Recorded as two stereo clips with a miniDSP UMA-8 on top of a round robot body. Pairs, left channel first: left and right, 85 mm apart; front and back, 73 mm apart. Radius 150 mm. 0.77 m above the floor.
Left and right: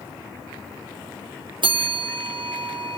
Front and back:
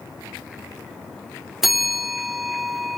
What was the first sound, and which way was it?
A bell, 95° right.